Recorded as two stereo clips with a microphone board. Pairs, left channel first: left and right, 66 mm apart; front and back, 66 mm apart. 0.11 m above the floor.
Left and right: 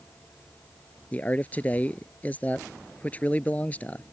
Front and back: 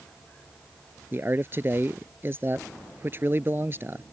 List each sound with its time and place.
1.1 s a man speaking: 145° left